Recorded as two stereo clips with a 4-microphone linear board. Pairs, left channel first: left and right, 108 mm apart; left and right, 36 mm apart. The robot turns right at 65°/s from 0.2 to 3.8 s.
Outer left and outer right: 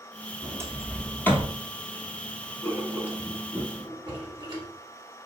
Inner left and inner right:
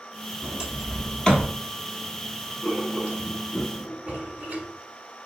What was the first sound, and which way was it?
A sliding door, 35° right (ahead or behind).